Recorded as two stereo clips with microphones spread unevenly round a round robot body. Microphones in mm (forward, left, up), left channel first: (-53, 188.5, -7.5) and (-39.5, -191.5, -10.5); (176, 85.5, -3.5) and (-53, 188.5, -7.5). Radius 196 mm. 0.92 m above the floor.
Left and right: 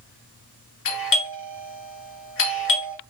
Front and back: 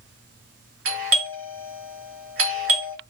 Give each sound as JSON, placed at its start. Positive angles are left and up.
{"t": 0.8, "sound": "a doorbell", "azimuth_deg": 145, "distance_m": 1.7}